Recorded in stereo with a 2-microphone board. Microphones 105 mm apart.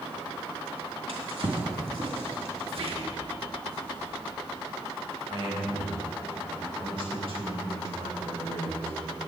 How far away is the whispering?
About 2.5 m.